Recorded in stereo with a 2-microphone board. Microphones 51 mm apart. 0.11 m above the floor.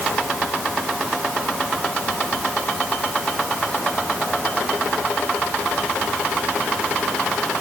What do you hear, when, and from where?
Only background noise.